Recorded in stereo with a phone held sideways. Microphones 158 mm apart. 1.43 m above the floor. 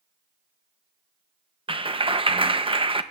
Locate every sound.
1.7 s a clap: 35° right (ahead or behind), 0.6 m